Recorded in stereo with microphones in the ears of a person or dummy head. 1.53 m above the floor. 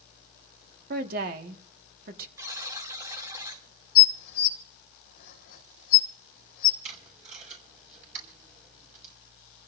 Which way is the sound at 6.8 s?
50° right (ahead or behind).